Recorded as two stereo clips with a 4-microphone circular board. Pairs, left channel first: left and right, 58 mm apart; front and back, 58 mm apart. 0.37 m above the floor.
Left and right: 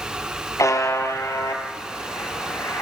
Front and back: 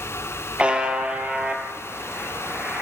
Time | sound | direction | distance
0.6 | a buzzer | 110° left | 3.5 m